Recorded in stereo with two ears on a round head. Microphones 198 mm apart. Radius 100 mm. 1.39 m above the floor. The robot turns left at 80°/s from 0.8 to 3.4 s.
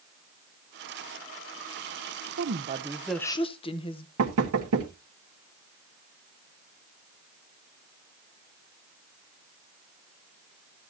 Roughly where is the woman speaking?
Behind right.